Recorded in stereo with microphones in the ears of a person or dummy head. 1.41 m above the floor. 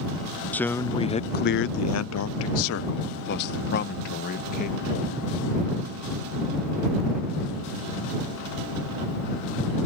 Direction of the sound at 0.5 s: 5° left (ahead or behind).